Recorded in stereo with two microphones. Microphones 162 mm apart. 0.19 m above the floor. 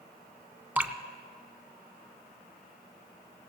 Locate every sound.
0.8 s dripping: 10° right (ahead or behind), 0.6 m